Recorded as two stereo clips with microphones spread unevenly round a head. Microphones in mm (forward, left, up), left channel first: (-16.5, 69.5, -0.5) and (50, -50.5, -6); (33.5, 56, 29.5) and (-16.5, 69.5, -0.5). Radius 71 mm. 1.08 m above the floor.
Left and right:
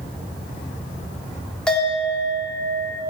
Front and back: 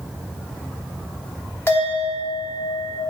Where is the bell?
35° left, 3 m.